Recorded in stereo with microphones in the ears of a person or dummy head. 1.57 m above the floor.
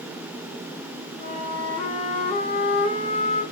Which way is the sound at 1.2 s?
35° left (ahead or behind).